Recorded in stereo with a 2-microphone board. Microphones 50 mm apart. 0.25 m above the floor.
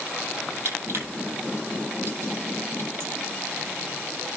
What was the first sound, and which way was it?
Crushing, 65° right (ahead or behind).